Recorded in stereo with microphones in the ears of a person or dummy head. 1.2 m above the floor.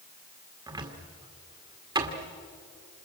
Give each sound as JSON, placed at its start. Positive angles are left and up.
{"t": 0.7, "sound": "a cupboard door", "side_deg": -20, "distance_m": 1.9}